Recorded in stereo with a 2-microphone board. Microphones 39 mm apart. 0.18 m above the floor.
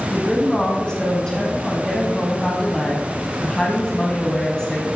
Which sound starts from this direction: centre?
A woman speaking, at 0.1 s.